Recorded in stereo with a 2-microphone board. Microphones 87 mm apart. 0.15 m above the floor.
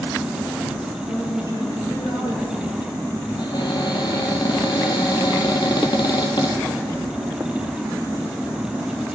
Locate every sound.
1.1 s a man speaking: 65° left (ahead or behind), 3.5 m
3.4 s a cupboard door: 60° left (ahead or behind), 1.8 m